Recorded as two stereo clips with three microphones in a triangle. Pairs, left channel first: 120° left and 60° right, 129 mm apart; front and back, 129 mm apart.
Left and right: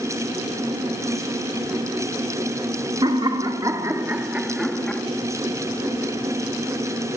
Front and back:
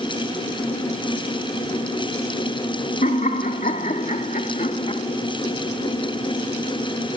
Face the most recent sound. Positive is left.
turn(degrees=40)